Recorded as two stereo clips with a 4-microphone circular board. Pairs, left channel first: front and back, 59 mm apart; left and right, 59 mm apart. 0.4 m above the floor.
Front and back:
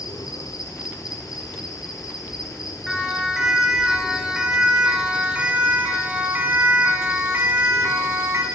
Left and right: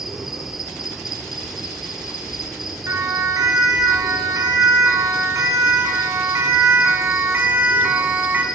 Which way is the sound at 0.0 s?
5° right.